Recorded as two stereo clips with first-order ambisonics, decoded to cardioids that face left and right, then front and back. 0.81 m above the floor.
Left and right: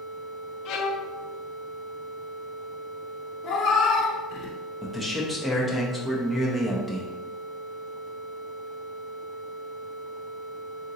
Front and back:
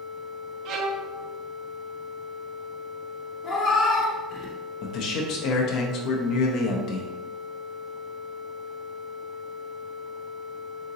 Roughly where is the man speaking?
Ahead.